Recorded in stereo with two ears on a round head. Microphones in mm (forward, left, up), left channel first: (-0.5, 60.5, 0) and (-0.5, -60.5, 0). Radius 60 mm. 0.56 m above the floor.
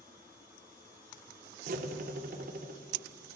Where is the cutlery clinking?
65° right (ahead or behind), 0.5 m.